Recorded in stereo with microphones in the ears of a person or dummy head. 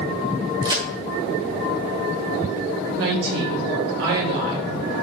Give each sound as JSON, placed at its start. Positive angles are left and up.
{"t": 0.6, "sound": "a crack", "side_deg": -20, "distance_m": 2.5}
{"t": 3.0, "sound": "a woman speaking", "side_deg": -85, "distance_m": 3.0}